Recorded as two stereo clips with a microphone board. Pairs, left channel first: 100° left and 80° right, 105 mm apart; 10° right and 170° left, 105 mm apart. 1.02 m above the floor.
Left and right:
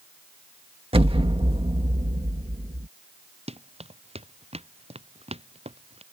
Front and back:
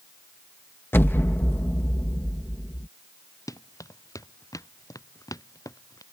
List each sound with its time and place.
0.9 s an explosion: 80° right
3.5 s running footsteps: 70° right